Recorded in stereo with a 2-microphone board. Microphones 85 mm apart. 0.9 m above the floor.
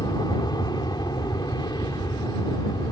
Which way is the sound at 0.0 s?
50° left (ahead or behind).